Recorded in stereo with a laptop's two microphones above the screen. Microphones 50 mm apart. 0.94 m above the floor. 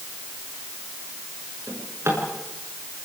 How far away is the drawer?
About 6.5 m.